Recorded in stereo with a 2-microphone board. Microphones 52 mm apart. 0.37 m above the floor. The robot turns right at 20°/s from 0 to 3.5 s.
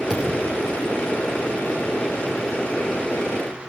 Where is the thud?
15° left (ahead or behind), 6 m; by 0.6 s 5° left (ahead or behind), 6 m.